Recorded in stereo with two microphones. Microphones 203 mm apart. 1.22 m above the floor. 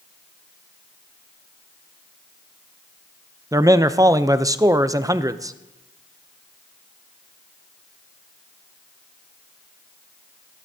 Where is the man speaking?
15° right (ahead or behind), 0.5 m.